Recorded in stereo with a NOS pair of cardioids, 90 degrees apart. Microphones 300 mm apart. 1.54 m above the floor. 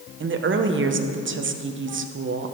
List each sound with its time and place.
0.2 s a woman speaking: 40° right, 1.2 m